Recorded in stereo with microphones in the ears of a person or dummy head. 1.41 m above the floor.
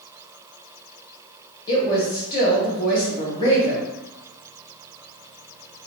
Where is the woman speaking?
25° left (ahead or behind), 1.3 m.